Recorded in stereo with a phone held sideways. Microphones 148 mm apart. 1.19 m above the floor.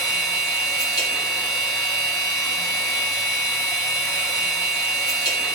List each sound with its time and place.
0.0 s a machine running: 25° left (ahead or behind), 3 m